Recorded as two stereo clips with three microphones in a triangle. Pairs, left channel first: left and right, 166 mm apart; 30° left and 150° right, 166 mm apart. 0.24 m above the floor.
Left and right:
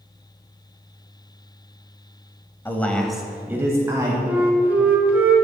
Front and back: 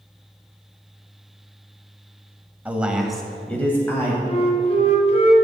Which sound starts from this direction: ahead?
A flute, at 4.3 s.